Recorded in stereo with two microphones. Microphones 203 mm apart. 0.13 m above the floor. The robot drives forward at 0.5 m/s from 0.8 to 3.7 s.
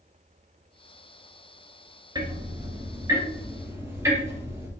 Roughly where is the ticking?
Right.